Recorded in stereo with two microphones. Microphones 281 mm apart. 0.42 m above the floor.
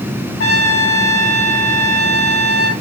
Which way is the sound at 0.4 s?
50° left (ahead or behind).